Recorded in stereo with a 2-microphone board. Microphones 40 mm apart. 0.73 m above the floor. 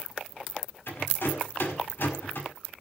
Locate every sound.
0.9 s a rattle: 60° left (ahead or behind), 5.5 m